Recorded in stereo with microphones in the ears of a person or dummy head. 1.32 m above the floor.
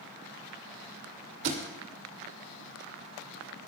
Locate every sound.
1.4 s a thud: 55° right (ahead or behind), 2.5 m